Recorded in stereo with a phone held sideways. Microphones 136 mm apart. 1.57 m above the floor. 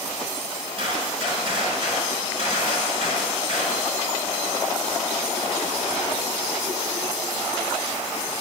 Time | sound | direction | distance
0.8 | a gunshot | 45° right (ahead or behind) | 5 m